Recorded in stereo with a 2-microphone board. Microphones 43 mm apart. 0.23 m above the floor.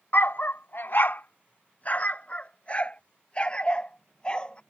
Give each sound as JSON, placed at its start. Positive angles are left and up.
{"t": 0.1, "sound": "a dog barking", "side_deg": 55}